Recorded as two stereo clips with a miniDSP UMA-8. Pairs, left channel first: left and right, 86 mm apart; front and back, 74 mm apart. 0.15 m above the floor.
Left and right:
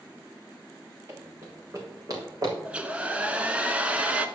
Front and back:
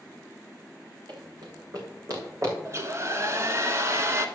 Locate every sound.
1.1 s running footsteps: 155° right, 4 m; by 2.5 s 135° right, 6 m
2.6 s a hair dryer: 160° right, 1.1 m